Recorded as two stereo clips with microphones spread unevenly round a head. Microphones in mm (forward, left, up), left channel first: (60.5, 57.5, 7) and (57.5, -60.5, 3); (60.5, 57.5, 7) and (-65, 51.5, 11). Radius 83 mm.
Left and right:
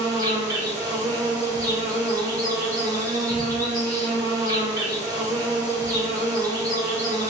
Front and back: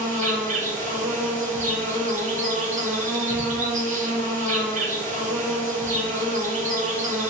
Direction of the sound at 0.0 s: 160° right.